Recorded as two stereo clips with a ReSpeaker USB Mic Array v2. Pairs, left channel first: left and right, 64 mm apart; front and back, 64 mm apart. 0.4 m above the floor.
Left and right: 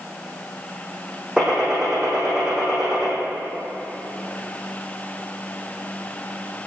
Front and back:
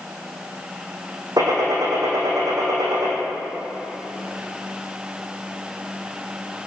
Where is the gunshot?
170° right, 4 m.